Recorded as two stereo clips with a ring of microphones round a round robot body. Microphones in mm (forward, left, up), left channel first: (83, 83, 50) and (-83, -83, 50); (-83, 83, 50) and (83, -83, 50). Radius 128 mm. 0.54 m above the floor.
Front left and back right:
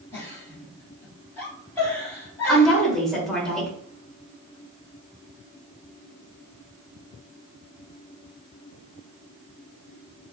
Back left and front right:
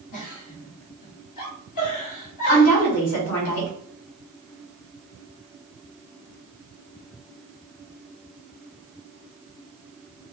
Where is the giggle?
125° left, 2.5 m.